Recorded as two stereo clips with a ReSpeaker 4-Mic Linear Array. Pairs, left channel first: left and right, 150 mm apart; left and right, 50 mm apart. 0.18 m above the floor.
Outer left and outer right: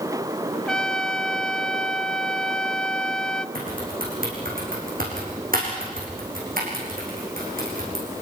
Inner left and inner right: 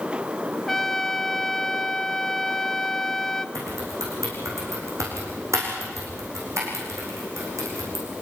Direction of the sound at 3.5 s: 70° right (ahead or behind).